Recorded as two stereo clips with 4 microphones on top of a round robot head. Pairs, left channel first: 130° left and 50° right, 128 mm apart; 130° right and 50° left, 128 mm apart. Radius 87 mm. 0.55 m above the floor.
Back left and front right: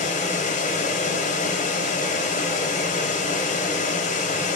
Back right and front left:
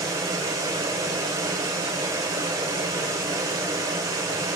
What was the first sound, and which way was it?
Running water, 115° left.